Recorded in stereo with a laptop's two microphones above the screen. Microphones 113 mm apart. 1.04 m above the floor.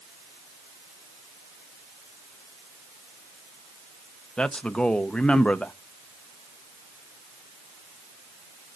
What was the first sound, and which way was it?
A man speaking, 10° left (ahead or behind).